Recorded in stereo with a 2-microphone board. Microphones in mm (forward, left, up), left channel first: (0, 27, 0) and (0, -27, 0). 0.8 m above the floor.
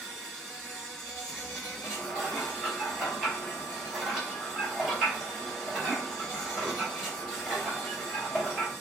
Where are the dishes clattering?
5° left (ahead or behind), 1.7 m.